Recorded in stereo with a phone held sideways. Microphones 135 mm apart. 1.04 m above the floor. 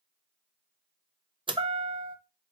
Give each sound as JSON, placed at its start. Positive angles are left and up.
{"t": 1.5, "sound": "a chime", "side_deg": -35, "distance_m": 0.5}